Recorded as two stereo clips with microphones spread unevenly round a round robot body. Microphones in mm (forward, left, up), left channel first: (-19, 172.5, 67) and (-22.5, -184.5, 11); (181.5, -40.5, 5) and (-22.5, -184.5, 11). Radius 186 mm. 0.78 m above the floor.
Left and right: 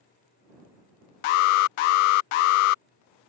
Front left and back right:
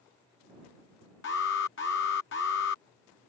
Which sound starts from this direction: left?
An alarm, at 1.2 s.